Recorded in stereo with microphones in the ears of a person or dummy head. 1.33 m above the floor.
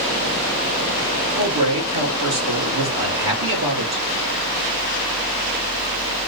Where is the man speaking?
80° right, 3.5 m.